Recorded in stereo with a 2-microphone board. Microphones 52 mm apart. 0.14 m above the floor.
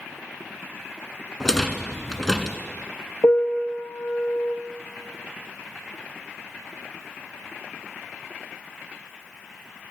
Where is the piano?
65° left (ahead or behind), 1.2 m.